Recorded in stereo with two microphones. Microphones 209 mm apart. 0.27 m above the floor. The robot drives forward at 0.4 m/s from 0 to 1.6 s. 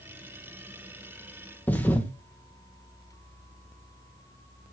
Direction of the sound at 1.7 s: 10° left (ahead or behind).